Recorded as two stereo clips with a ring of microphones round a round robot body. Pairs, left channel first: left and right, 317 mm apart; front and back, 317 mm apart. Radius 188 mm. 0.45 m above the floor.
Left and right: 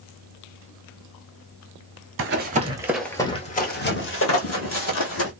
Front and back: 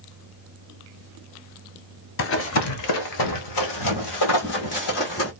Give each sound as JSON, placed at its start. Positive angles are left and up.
{"t": 2.2, "sound": "running footsteps", "azimuth_deg": -45, "distance_m": 0.7}